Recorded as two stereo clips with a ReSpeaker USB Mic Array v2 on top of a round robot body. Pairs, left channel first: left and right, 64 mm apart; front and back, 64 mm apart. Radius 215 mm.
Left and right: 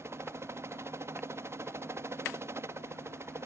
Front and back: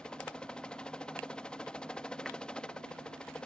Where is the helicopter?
70° right.